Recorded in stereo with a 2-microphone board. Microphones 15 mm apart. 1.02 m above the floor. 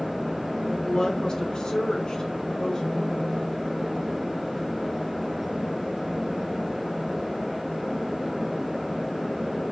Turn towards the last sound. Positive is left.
turn(degrees=35)  # may be behind; listen again after turning